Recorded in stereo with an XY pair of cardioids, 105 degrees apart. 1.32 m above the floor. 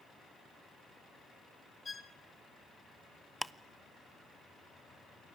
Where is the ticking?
Straight ahead, 0.7 m.